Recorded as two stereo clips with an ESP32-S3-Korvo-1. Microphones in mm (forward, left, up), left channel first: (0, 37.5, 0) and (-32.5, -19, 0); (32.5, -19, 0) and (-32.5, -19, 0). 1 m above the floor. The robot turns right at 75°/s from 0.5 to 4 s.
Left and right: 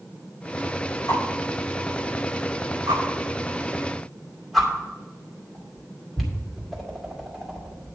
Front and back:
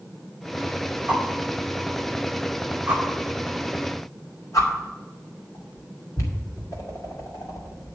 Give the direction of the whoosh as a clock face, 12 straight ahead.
8 o'clock.